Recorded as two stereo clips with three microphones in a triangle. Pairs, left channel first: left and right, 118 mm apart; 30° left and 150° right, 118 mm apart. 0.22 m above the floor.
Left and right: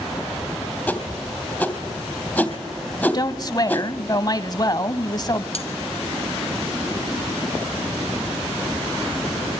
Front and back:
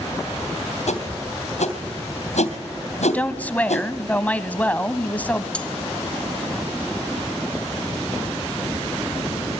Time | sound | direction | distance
0.9 | a whoosh | 10° left | 3 m
3.1 | a woman speaking | 95° left | 1.3 m
5.5 | cutlery clinking | 110° left | 1.7 m